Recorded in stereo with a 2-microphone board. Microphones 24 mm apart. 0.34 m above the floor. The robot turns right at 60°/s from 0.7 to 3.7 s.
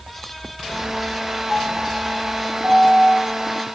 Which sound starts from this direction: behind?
A piano, at 1.5 s.